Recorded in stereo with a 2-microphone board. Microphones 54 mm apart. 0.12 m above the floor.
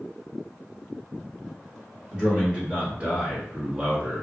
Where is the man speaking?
15° right (ahead or behind), 1.3 m; by 4.2 s 20° right (ahead or behind), 1.4 m.